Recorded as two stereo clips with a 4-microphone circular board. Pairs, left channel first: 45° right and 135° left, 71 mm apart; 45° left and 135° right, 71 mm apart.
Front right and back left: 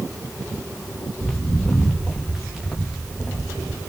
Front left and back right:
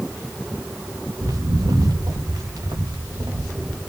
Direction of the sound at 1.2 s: 130° right.